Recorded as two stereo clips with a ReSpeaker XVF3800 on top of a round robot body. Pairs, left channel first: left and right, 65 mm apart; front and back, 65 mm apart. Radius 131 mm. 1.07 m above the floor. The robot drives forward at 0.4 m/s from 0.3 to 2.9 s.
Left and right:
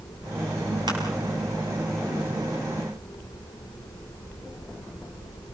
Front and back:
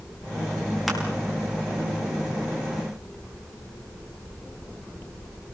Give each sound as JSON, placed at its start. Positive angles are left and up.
{"t": 0.9, "sound": "crushing", "azimuth_deg": -95, "distance_m": 6.0}